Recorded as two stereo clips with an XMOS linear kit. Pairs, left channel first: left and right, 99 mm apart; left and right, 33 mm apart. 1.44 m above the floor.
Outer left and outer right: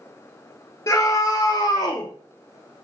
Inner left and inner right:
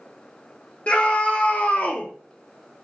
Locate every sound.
0.9 s a scream: 45° left (ahead or behind), 2 m; by 2.1 s 60° left (ahead or behind), 2.5 m